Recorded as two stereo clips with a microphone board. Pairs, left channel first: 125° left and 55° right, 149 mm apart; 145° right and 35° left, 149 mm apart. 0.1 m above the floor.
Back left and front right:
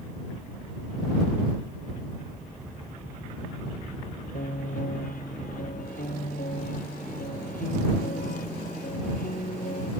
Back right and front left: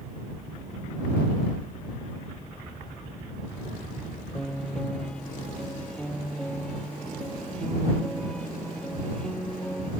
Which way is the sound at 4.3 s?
130° left.